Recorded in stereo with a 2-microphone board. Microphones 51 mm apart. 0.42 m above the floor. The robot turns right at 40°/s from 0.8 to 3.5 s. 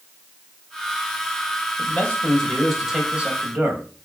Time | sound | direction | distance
1.8 | a man speaking | 140° left | 3 m